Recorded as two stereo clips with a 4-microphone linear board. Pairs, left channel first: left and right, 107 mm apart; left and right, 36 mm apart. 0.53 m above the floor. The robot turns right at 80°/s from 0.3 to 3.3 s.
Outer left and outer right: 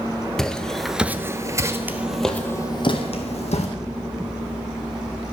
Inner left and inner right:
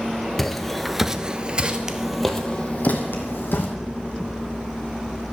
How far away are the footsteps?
About 0.6 m.